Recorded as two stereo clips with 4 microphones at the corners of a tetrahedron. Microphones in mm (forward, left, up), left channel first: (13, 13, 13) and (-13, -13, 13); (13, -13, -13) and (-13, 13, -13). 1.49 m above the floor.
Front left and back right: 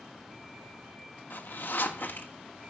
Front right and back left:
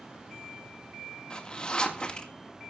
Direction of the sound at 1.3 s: 20° left.